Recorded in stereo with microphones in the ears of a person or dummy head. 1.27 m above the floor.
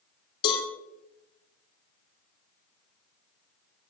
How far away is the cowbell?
About 3.5 m.